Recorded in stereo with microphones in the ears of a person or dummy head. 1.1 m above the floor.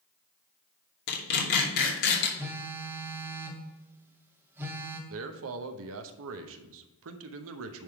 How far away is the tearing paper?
About 2.5 m.